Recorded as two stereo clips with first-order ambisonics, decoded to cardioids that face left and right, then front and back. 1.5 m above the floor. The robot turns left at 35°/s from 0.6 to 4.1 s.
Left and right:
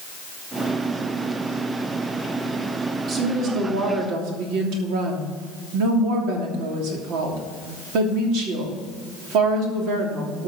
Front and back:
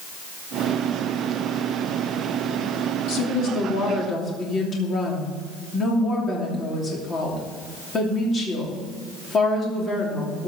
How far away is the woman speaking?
About 3 m.